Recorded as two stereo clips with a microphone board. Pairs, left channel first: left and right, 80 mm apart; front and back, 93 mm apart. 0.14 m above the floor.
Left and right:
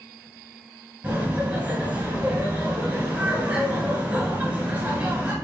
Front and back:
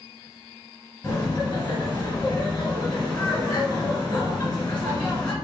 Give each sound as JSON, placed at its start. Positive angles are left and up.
{"t": 1.0, "sound": "laughter", "azimuth_deg": -50, "distance_m": 1.1}